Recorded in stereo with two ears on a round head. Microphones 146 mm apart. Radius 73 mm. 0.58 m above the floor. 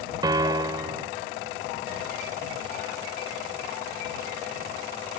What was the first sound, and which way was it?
A piano, 25° right (ahead or behind).